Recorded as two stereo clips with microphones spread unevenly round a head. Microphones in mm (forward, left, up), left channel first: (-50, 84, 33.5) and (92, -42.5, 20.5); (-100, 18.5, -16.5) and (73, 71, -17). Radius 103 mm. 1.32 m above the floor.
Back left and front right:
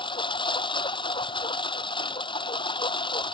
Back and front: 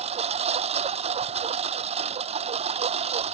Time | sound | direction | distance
0.0 | a lawn mower | 75° left | ?